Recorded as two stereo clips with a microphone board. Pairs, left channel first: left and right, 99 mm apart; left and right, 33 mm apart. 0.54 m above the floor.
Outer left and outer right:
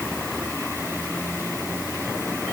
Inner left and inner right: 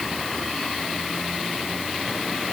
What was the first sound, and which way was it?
Only background noise.